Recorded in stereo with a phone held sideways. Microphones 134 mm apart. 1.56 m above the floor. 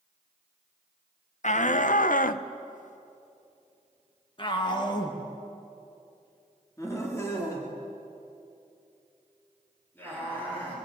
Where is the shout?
60° left (ahead or behind), 1.2 m; by 10.8 s 15° left (ahead or behind), 6 m.